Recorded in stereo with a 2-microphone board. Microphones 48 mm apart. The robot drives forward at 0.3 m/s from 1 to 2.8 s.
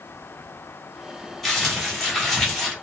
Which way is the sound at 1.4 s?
5° left (ahead or behind).